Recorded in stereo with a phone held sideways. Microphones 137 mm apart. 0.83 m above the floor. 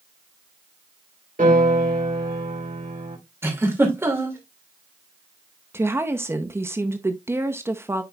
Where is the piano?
75° right (ahead or behind), 3.5 m.